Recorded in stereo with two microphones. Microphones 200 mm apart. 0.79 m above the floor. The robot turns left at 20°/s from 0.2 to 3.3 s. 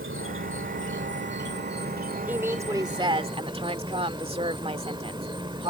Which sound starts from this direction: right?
An insect, at 0.0 s.